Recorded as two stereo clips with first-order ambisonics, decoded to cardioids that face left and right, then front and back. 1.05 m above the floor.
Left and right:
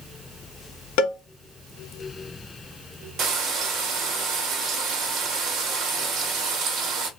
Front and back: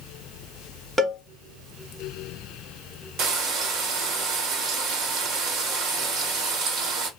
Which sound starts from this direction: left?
A cowbell, at 1.0 s.